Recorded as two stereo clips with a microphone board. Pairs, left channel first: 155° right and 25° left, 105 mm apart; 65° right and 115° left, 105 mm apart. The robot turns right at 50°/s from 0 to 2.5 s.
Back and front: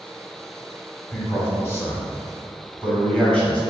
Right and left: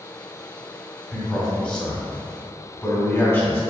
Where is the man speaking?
160° right, 1.3 m; by 3.6 s 90° right, 1.3 m.